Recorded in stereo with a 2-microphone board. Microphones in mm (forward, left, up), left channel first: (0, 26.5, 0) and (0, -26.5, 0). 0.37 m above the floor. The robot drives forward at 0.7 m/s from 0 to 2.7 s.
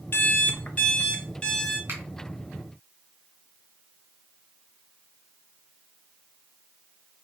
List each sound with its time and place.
0.1 s an alarm clock: 40° left (ahead or behind), 0.6 m; by 1.8 s 15° left (ahead or behind), 1.4 m
1.9 s a finger snap: 50° right (ahead or behind), 2.5 m